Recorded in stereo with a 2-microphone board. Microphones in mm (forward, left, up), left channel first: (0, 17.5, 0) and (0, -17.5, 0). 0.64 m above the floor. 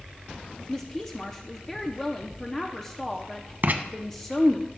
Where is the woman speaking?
15° left (ahead or behind), 0.6 m.